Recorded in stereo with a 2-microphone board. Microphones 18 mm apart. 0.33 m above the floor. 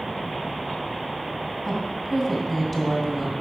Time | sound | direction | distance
1.6 | a woman speaking | centre (ahead or behind) | 2.5 m